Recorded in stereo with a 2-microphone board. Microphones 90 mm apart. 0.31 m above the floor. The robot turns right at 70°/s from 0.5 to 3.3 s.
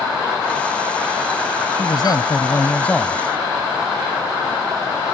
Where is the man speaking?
85° left; by 3.2 s 175° right.